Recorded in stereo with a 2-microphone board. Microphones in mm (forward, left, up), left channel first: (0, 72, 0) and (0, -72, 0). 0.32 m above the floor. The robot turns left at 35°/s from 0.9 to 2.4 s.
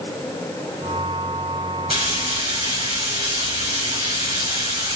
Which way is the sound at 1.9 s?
35° right (ahead or behind).